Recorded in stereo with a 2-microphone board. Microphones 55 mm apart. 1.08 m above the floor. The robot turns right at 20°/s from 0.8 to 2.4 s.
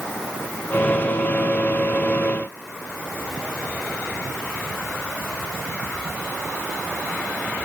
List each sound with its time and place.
Only background noise.